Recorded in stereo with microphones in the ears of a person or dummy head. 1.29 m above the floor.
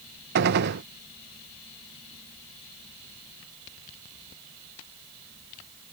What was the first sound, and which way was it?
A gunshot, 55° right (ahead or behind).